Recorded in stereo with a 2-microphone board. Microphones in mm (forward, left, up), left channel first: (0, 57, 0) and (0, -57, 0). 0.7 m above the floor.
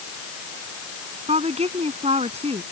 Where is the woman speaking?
70° right (ahead or behind).